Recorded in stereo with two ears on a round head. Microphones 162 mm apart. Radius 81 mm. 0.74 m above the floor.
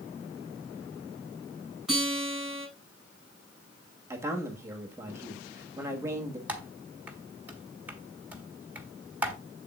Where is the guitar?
5° right (ahead or behind), 5.5 m.